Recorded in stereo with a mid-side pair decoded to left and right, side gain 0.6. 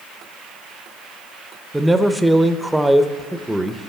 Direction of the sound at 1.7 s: 5° right.